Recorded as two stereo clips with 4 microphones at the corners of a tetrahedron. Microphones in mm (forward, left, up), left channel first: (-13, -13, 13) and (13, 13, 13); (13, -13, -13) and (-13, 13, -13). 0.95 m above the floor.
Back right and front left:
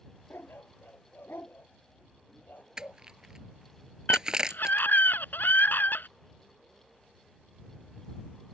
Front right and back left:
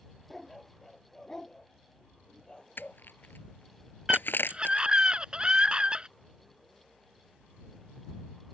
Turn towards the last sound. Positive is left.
turn(degrees=-160)